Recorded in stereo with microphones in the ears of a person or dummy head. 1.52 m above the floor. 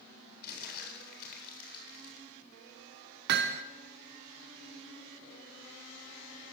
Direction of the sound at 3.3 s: 60° right (ahead or behind).